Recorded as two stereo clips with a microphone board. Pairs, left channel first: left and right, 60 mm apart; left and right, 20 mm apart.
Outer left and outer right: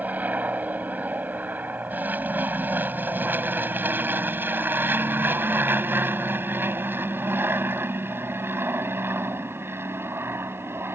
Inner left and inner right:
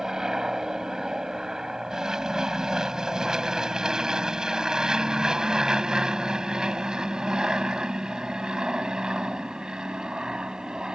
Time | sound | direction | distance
0.0 | an aircraft | 25° right (ahead or behind) | ?